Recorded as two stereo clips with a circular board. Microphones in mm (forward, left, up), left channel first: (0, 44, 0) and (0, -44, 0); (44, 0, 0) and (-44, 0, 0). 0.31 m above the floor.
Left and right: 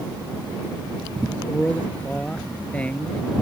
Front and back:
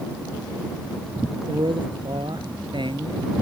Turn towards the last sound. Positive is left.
turn(degrees=165)